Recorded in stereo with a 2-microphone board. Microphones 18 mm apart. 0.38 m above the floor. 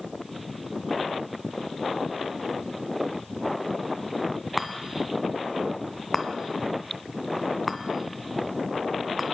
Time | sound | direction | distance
4.6 | a chime | 5° right (ahead or behind) | 2.0 m